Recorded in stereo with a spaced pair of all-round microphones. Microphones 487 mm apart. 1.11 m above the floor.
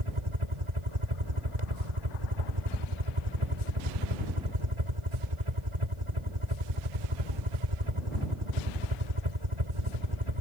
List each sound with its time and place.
0.0 s a helicopter: 75° right (ahead or behind)